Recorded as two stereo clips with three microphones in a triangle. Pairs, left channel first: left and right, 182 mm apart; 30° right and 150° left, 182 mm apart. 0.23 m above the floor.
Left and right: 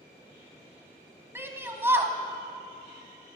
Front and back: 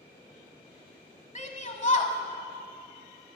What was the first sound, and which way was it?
A shout, 20° right.